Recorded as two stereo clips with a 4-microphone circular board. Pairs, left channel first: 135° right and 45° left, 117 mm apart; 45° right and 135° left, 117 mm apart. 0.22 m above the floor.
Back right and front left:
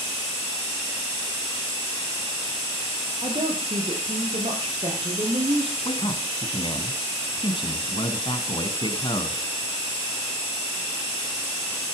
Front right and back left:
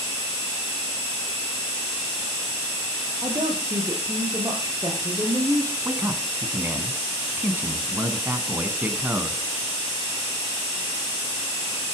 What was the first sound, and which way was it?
A woman speaking, 75° left.